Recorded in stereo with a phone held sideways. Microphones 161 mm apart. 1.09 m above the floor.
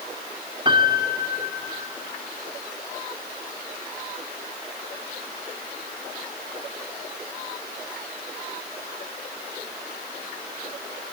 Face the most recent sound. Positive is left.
turn(degrees=-30)  # may be behind; listen again after turning